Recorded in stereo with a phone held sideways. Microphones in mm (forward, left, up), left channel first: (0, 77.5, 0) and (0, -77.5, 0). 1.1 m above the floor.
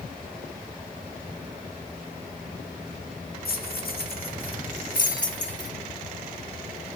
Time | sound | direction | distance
3.5 | keys jangling | 75° left (ahead or behind) | 1.4 m